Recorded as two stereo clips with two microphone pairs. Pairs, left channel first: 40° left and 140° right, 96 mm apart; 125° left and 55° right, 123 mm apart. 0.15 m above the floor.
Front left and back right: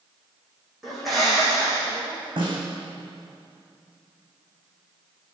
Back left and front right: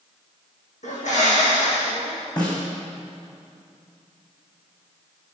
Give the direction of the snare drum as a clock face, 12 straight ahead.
6 o'clock.